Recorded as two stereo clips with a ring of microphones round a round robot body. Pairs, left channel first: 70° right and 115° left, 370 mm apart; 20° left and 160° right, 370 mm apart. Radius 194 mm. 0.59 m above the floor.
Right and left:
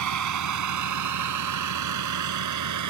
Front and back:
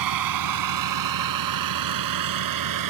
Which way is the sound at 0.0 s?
160° left.